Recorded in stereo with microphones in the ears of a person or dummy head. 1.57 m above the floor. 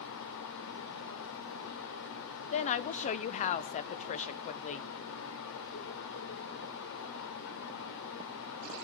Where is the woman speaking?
40° left (ahead or behind), 0.8 m.